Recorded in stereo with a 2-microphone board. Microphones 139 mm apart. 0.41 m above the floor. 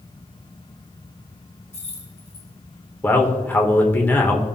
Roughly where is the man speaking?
Centre.